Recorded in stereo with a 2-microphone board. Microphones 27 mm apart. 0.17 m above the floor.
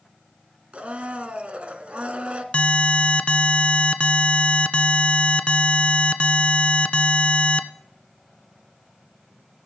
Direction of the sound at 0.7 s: 50° right (ahead or behind).